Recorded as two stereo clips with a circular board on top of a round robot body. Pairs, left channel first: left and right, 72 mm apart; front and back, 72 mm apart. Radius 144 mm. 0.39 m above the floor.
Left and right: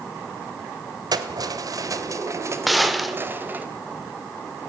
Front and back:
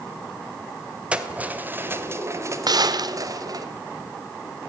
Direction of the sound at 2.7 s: Straight behind.